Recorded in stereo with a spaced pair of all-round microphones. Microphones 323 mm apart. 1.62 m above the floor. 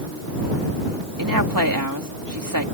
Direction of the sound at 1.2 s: 85° right.